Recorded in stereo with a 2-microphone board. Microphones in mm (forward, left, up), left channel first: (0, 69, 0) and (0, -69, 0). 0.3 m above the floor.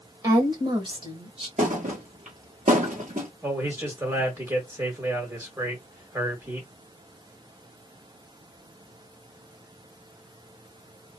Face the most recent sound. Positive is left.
turn(degrees=-20)  # may be behind; listen again after turning